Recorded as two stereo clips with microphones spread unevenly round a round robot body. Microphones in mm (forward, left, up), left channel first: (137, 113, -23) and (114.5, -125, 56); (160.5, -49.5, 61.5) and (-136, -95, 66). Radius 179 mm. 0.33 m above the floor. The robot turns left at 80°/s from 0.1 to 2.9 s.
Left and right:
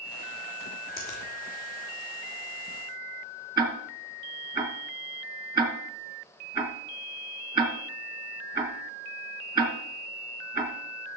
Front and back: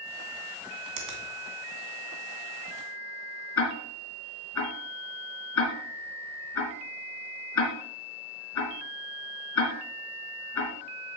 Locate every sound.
1.0 s a finger snap: straight behind, 2.5 m; by 1.2 s 160° left, 2.5 m
3.6 s ticking: 20° right, 3 m